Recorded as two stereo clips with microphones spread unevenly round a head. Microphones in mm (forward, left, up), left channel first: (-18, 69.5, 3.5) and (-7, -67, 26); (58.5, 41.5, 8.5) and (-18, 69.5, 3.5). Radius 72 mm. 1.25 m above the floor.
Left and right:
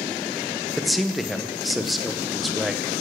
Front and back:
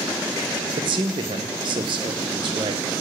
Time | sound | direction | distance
0.8 | a man speaking | straight behind | 0.8 m